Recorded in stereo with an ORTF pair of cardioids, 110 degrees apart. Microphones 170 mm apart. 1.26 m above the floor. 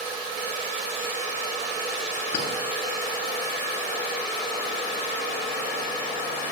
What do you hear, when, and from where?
2.3 s a clink: 65° left, 7 m